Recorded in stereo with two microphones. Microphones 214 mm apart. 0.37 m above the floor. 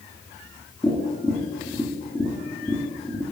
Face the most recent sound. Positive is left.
turn(degrees=15)  # may be behind; listen again after turning